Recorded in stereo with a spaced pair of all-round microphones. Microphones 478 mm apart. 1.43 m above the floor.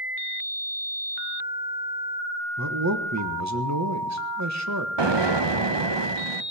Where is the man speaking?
35° right (ahead or behind), 1.3 m.